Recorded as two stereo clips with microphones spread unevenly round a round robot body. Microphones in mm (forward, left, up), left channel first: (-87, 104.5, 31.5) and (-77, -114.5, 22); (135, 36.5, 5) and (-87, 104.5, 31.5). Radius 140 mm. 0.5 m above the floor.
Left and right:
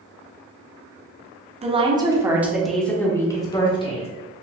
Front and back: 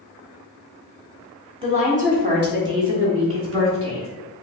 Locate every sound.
1.6 s a woman speaking: 130° right, 1.2 m; by 4.1 s 155° left, 1.7 m